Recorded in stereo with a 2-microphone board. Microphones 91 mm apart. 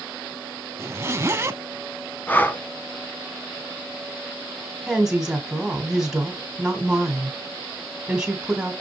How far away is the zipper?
About 0.7 m.